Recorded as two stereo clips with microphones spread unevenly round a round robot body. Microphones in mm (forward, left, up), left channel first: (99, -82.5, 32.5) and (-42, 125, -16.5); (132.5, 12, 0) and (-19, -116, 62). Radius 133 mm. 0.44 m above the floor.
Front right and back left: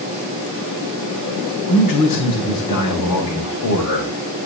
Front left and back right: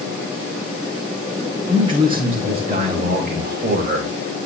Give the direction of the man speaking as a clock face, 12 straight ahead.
2 o'clock.